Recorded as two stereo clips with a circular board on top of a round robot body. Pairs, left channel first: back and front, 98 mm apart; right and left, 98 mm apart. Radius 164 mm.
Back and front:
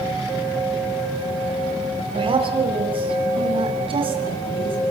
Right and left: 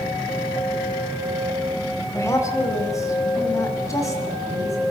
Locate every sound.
2.1 s a woman speaking: 30° right, 5 m